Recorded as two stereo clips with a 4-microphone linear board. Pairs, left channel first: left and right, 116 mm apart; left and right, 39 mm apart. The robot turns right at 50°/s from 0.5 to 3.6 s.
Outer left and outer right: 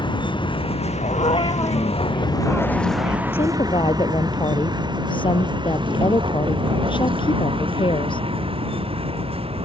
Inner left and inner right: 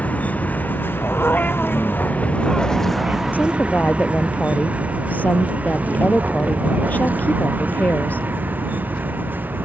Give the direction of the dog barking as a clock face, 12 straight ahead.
8 o'clock.